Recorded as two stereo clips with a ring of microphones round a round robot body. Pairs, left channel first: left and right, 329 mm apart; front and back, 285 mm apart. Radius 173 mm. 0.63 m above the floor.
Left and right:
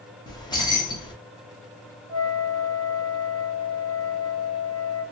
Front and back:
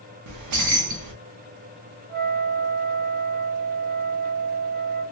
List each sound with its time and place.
0.3 s keys jangling: 165° left, 0.7 m
2.1 s a flute: 170° right, 1.4 m